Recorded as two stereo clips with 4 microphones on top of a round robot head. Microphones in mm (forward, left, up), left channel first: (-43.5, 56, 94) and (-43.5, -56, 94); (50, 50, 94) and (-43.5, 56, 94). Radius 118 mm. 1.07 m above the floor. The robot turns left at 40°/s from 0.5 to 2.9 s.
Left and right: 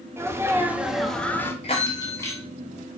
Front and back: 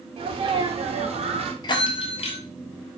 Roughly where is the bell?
Ahead left.